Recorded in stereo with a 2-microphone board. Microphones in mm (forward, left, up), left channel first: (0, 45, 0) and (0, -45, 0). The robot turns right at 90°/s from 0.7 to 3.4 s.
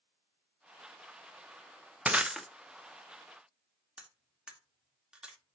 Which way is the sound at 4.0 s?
10° right (ahead or behind).